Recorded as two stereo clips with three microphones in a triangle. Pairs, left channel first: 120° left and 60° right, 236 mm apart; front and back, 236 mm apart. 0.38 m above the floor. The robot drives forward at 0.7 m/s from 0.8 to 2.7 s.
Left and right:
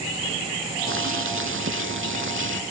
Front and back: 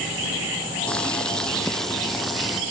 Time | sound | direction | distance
0.9 | boiling | 85° right | ?